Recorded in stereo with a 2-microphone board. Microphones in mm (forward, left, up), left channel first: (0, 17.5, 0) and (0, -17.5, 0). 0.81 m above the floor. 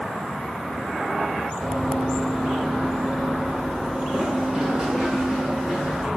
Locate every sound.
1.6 s running footsteps: centre (ahead or behind), 0.9 m; by 6.1 s 20° right (ahead or behind), 2.5 m